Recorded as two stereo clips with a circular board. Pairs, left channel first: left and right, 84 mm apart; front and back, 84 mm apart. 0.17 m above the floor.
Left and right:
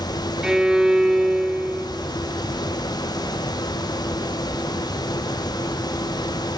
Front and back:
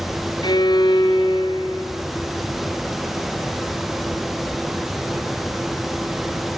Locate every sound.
0.4 s a violin: 10° right, 2.0 m